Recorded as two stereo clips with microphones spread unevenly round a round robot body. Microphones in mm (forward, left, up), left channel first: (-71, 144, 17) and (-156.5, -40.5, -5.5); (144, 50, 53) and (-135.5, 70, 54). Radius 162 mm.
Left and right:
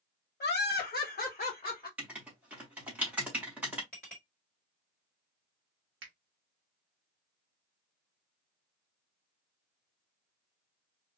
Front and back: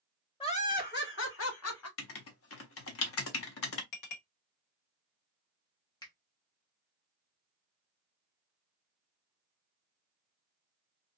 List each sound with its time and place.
0.4 s laughter: 60° left, 1.0 m; by 1.9 s 10° right, 1.3 m
2.0 s writing: 25° right, 0.5 m
3.9 s a clink: 20° right, 1.5 m
6.0 s a finger snap: 80° right, 0.7 m